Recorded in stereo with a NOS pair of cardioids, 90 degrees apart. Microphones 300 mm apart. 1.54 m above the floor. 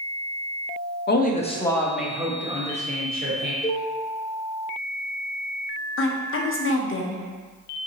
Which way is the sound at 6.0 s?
45° left.